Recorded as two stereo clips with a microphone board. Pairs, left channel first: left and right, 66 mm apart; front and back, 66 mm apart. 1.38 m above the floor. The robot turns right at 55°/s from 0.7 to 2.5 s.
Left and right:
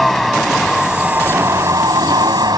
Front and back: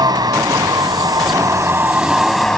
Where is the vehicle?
Straight behind; by 2.6 s 80° right.